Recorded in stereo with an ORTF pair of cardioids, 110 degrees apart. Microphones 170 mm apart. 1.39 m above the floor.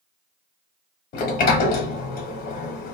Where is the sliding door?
65° left, 0.7 m.